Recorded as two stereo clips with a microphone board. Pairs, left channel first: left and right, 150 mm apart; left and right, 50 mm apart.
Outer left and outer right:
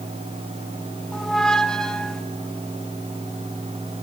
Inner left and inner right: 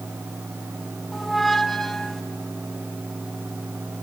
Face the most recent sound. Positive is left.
turn(degrees=5)  # may be behind; listen again after turning